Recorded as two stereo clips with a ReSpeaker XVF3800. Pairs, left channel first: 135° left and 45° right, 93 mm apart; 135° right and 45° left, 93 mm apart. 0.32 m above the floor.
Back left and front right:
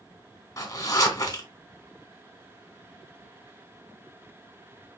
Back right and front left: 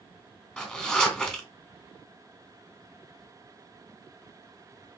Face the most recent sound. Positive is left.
turn(degrees=155)